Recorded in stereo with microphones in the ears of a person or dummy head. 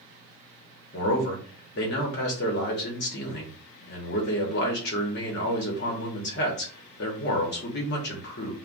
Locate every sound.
0.9 s a man speaking: 55° left (ahead or behind), 1.0 m